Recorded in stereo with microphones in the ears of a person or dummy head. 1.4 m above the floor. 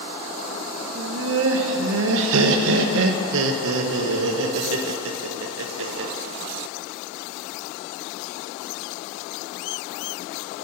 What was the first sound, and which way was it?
Laughter, 70° right (ahead or behind).